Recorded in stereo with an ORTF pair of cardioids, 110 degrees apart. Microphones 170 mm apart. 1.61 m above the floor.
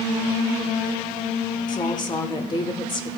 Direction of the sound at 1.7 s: 25° left.